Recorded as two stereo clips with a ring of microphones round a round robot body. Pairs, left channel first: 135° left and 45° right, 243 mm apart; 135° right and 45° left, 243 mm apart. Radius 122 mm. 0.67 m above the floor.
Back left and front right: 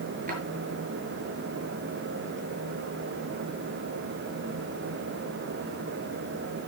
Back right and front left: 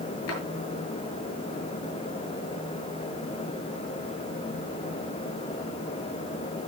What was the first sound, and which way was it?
A drawer, 105° right.